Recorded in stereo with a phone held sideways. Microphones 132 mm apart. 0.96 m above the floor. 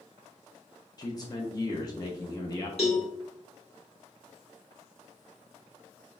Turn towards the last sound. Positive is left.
turn(degrees=50)  # may be behind; listen again after turning